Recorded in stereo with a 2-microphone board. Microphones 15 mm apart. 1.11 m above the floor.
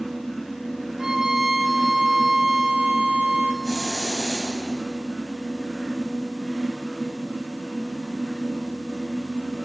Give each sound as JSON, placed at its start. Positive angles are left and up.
{"t": 1.0, "sound": "a violin", "side_deg": -40, "distance_m": 2.0}
{"t": 3.6, "sound": "a hiss", "side_deg": 15, "distance_m": 9.5}